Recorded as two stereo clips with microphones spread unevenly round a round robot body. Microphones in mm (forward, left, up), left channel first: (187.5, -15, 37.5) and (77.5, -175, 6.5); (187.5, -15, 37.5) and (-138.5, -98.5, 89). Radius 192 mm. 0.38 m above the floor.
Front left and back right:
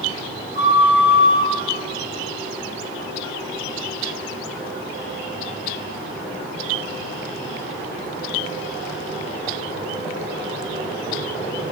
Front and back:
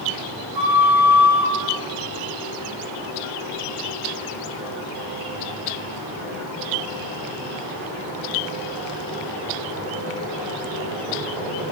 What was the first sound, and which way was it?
A flute, 155° right.